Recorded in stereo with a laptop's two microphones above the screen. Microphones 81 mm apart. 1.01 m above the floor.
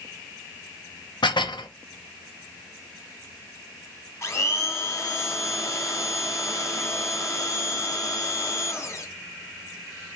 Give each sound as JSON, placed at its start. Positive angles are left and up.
{"t": 1.2, "sound": "dishes clattering", "side_deg": 75, "distance_m": 0.7}
{"t": 4.2, "sound": "a blender", "side_deg": 35, "distance_m": 1.2}